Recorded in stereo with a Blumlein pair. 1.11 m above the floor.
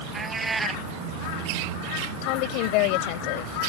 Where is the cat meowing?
10° right.